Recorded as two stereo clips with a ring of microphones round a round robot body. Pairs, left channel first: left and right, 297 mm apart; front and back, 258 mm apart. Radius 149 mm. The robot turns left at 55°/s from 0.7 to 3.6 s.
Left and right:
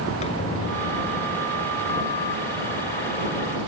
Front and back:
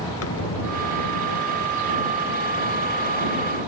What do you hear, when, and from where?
0.2 s a squeak: 20° left; by 2.1 s 55° right